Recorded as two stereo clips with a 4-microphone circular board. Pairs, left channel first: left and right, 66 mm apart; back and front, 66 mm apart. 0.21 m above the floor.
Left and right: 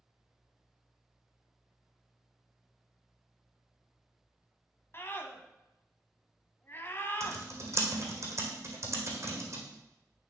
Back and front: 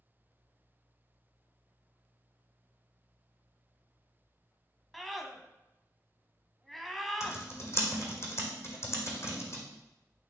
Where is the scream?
90° left, 1.1 m.